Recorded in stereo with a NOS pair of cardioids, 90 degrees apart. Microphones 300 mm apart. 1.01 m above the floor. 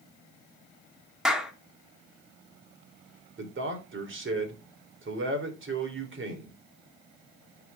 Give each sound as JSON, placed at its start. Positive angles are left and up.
{"t": 1.2, "sound": "a clap", "azimuth_deg": 0, "distance_m": 2.5}
{"t": 3.4, "sound": "a man speaking", "azimuth_deg": -40, "distance_m": 3.5}